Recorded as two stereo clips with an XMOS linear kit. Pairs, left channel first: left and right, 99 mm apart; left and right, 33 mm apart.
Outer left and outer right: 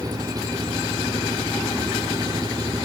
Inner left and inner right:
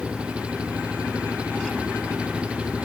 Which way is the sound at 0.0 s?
35° right (ahead or behind).